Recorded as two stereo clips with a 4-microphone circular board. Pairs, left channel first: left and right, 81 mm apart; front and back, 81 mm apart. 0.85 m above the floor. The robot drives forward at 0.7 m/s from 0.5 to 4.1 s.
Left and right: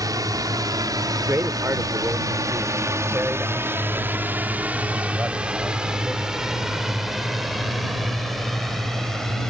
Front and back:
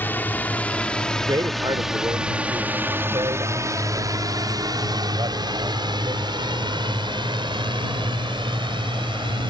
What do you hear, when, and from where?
0.0 s a drone: 60° right; by 9.5 s 175° left
1.2 s a man speaking: 145° right; by 6.3 s 160° right